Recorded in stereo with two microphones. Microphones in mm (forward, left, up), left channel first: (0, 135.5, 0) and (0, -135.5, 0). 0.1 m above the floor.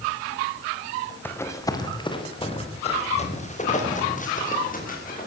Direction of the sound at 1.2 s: 10° left (ahead or behind).